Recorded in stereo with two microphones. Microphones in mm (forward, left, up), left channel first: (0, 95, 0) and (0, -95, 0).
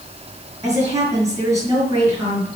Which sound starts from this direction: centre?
A woman speaking, at 0.6 s.